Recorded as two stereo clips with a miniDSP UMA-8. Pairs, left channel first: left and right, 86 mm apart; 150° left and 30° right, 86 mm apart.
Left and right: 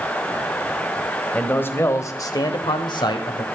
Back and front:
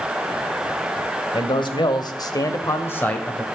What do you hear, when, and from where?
1.3 s a man speaking: 160° left, 1.8 m; by 3.5 s 70° left, 1.7 m